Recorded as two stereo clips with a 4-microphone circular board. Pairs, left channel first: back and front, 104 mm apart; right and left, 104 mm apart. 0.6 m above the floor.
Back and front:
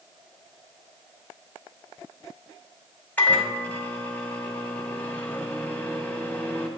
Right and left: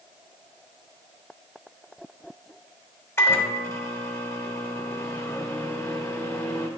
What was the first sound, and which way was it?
A microwave, 120° right.